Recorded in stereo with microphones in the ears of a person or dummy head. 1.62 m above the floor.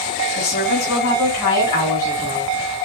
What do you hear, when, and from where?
0.4 s a woman speaking: 45° left (ahead or behind), 3 m; by 2.5 s 15° left (ahead or behind), 4 m